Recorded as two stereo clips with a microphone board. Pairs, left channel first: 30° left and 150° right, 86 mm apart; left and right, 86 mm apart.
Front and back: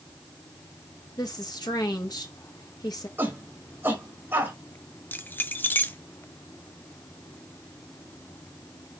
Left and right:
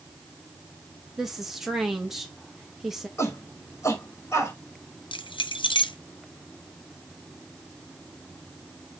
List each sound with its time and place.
1.2 s a woman speaking: 5° right, 1.9 m
3.2 s a shout: 145° left, 4.5 m
5.1 s keys jangling: 95° left, 0.7 m